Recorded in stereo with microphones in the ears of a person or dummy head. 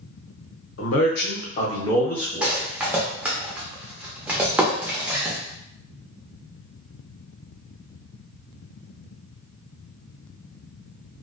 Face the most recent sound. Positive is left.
turn(degrees=-10)  # may be behind; listen again after turning